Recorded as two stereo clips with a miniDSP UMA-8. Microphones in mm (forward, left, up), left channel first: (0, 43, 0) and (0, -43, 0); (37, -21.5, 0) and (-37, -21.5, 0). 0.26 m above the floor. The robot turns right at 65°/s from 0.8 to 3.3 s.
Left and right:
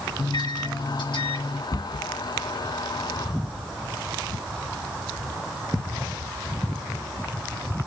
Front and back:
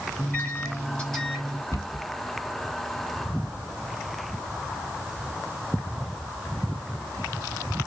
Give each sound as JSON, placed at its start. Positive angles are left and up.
{"t": 0.2, "sound": "a microwave", "azimuth_deg": 60, "distance_m": 3.0}
{"t": 1.7, "sound": "a cupboard door", "azimuth_deg": 45, "distance_m": 1.0}